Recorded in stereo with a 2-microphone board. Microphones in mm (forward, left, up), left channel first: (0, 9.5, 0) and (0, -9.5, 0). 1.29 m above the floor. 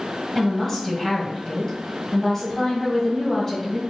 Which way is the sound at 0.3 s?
15° left (ahead or behind).